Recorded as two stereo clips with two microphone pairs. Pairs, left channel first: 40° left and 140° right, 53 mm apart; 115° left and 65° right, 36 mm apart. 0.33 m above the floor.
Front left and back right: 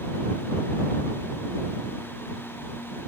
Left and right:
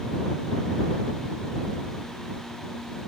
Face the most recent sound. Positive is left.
No sound to turn to.